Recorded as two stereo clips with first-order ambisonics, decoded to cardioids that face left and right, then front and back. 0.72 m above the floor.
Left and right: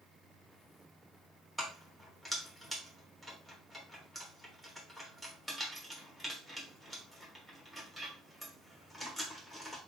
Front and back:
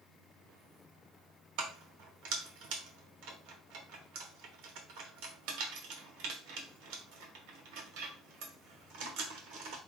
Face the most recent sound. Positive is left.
turn(degrees=175)